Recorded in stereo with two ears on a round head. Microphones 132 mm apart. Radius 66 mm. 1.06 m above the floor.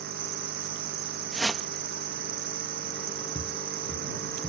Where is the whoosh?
Centre (ahead or behind).